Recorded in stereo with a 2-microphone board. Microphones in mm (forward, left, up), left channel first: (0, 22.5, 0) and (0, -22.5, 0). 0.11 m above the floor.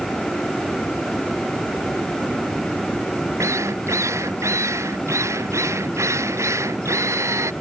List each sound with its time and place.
3.4 s a drill: 85° right